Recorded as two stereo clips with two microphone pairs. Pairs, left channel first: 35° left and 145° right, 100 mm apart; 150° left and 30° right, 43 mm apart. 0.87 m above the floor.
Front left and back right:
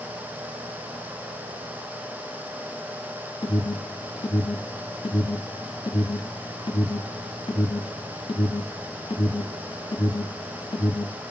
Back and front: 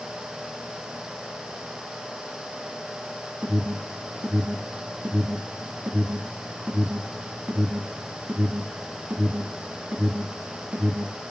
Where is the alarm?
20° left, 2.5 m.